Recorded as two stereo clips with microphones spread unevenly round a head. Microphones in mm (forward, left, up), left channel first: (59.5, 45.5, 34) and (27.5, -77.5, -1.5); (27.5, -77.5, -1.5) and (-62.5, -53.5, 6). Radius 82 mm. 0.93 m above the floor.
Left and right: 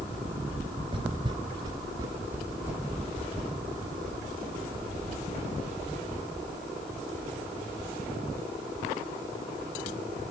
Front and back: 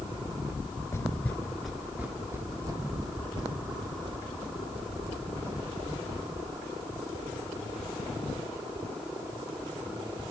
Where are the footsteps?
55° right, 0.9 m; by 6.3 s 150° left, 3 m.